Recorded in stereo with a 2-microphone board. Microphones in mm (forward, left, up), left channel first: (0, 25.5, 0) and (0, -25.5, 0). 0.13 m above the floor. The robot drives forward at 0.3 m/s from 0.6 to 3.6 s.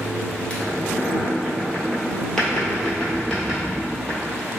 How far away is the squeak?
About 0.6 m.